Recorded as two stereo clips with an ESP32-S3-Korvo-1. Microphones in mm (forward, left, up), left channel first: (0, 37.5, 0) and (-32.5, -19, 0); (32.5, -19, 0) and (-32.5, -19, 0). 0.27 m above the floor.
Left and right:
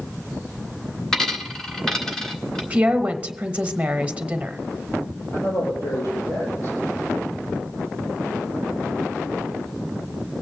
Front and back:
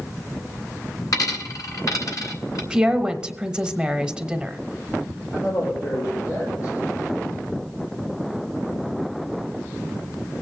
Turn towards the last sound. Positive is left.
turn(degrees=35)